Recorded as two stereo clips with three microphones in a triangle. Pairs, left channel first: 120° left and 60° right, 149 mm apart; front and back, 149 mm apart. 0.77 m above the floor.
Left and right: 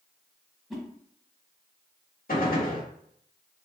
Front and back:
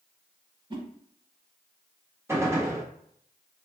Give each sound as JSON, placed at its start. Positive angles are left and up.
{"t": 0.7, "sound": "a whoosh", "azimuth_deg": -145, "distance_m": 0.7}
{"t": 2.3, "sound": "a gunshot", "azimuth_deg": 110, "distance_m": 1.0}